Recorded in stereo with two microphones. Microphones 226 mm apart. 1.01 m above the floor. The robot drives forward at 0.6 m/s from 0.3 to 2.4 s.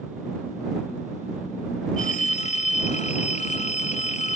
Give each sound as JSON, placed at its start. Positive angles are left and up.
{"t": 2.0, "sound": "a phone ringing", "side_deg": 35}